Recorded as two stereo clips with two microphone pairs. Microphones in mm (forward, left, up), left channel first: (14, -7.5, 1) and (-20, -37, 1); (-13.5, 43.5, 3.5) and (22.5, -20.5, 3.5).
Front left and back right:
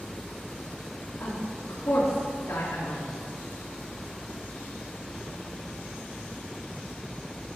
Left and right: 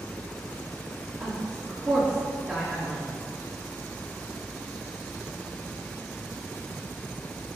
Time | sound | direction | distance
1.2 | a woman speaking | 5° left | 4.5 m